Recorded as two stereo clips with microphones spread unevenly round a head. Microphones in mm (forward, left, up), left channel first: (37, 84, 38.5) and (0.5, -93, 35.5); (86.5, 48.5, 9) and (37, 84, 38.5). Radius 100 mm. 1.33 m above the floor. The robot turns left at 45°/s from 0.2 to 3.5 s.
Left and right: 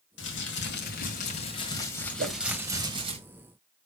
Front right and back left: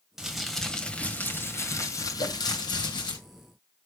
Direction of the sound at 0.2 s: 85° left.